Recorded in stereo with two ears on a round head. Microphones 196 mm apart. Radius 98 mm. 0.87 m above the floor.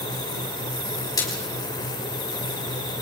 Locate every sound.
1.2 s a splash: 15° left (ahead or behind), 5 m